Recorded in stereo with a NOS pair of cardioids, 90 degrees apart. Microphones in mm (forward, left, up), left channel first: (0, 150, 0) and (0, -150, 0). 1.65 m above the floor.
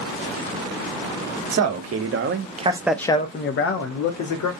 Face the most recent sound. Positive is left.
turn(degrees=70)